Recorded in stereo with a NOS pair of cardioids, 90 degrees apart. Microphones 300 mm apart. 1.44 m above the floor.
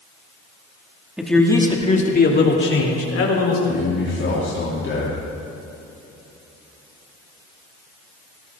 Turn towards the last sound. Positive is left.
turn(degrees=40)